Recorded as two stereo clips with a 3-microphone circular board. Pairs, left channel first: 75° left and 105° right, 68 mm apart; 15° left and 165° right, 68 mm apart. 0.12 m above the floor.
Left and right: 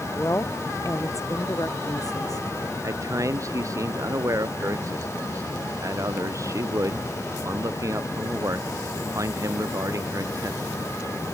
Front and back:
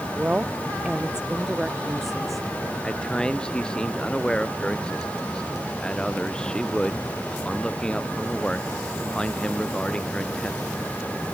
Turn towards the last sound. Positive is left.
turn(degrees=-65)